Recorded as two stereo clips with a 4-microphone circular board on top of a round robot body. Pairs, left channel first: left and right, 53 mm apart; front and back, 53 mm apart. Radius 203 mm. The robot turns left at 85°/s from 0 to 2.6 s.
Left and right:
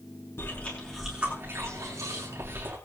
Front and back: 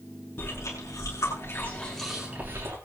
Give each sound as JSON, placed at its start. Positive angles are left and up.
{"t": 0.4, "sound": "chewing", "azimuth_deg": 55, "distance_m": 8.0}